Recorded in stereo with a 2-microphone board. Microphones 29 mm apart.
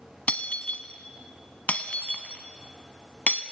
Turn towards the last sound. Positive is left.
turn(degrees=60)  # may be behind; listen again after turning